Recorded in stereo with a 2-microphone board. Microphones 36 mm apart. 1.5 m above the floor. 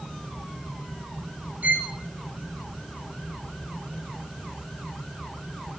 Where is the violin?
45° right (ahead or behind), 0.6 m.